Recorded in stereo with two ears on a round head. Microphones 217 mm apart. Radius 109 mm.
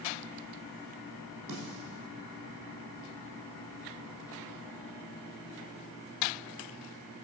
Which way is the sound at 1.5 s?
80° right.